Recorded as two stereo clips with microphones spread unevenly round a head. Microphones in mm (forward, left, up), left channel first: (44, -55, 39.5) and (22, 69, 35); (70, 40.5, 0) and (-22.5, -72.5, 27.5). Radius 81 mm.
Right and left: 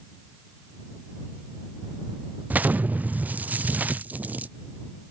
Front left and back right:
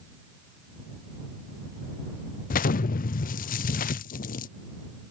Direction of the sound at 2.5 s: 20° left.